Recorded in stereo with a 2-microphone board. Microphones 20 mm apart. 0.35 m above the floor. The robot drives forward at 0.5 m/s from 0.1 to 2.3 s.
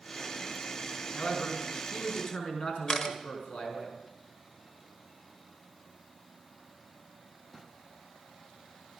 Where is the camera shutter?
35° left (ahead or behind), 1.2 m.